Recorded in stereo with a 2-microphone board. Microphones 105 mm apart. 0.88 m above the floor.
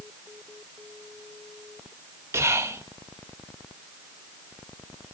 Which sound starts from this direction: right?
Whispering, at 2.3 s.